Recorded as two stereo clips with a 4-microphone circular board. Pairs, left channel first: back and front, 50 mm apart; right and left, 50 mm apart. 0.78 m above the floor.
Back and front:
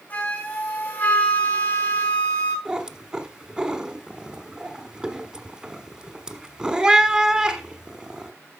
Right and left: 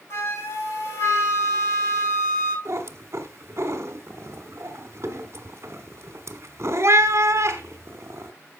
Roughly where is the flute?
Behind right.